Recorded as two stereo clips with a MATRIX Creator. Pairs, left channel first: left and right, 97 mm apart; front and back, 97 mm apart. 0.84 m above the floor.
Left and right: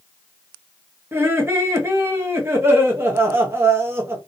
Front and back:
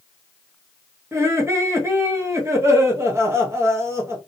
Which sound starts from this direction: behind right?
Laughter, at 1.1 s.